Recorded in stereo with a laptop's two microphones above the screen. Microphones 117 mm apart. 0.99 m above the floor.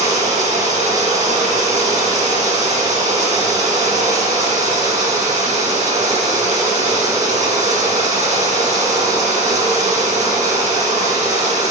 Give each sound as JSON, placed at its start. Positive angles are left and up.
{"t": 0.0, "sound": "running water", "side_deg": -75, "distance_m": 3.0}